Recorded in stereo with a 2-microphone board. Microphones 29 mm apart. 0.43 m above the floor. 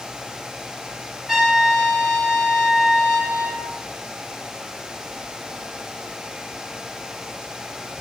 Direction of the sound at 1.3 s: 5° right (ahead or behind).